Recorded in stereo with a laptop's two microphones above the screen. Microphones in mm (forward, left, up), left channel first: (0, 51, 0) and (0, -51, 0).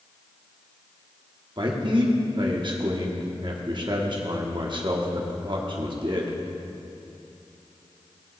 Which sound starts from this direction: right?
A man speaking, at 1.6 s.